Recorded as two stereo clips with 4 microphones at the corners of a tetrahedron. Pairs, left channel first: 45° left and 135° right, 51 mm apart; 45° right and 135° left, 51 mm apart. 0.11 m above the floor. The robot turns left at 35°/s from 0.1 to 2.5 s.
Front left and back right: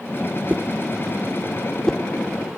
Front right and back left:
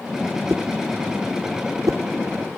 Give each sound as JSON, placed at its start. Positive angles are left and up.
{"t": 0.5, "sound": "a whoosh", "azimuth_deg": 170}